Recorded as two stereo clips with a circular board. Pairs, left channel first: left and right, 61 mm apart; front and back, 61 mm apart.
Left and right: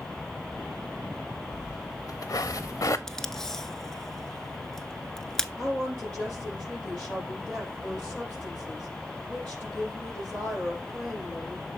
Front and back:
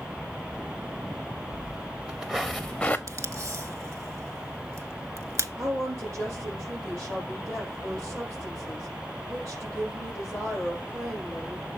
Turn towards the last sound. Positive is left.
turn(degrees=160)